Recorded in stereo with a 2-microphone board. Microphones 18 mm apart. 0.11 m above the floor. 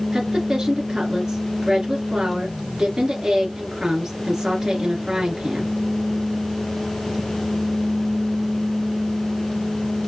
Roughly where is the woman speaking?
Right.